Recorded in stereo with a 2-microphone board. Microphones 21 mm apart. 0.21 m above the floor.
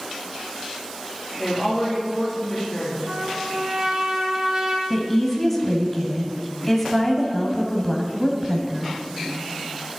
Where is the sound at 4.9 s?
10° left (ahead or behind), 1.1 m.